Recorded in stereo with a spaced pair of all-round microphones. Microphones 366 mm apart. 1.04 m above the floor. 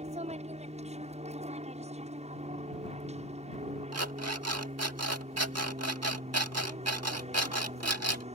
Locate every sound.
0.0 s an aircraft: 15° right (ahead or behind)
3.9 s an alarm clock: 40° right (ahead or behind)